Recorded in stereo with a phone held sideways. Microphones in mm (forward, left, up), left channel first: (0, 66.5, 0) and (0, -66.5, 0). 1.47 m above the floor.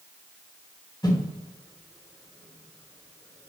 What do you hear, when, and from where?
1.0 s a whoosh: 30° left (ahead or behind), 2.5 m